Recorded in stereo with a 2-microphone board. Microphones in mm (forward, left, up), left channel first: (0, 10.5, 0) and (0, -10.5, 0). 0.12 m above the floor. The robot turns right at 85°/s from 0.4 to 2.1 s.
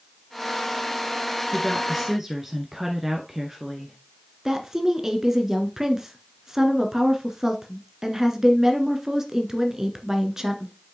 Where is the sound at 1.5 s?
150° left, 1.3 m; by 4.0 s 160° right, 1.3 m.